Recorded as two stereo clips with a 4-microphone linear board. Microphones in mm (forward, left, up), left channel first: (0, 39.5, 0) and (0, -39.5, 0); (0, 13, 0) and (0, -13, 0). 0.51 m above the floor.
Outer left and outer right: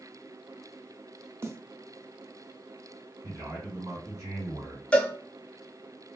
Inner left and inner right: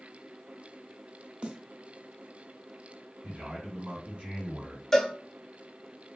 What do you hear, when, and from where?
1.4 s a snare drum: 35° right (ahead or behind), 0.6 m
3.2 s a man speaking: 50° right (ahead or behind), 1.9 m
4.9 s a cowbell: 15° left (ahead or behind), 0.5 m